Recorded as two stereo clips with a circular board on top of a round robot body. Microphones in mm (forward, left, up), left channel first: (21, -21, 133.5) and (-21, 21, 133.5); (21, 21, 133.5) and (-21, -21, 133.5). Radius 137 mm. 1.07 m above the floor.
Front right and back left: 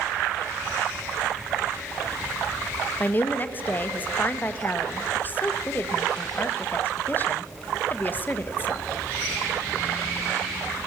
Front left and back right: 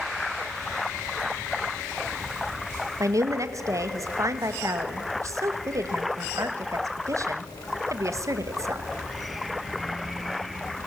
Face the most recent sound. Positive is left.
turn(degrees=-105)